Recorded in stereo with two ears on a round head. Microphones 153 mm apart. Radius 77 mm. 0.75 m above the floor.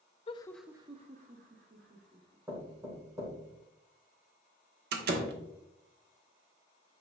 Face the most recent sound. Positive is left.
turn(degrees=-65)  # may be behind; listen again after turning